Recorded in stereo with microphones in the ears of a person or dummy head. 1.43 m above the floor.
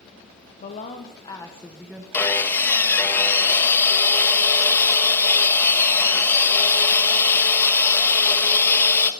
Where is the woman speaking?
40° left (ahead or behind), 1.2 m; by 2.0 s 10° right (ahead or behind), 1.3 m.